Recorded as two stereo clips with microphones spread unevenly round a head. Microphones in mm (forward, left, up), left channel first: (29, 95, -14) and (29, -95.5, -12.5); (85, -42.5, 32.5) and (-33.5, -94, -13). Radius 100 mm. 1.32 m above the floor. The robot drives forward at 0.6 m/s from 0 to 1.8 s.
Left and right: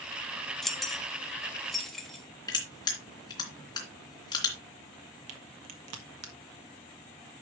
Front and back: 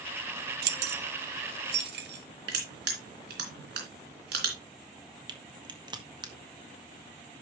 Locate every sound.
0.6 s keys jangling: straight behind, 0.7 m
2.5 s crushing: 160° left, 3 m
5.3 s a crack: 95° right, 1.7 m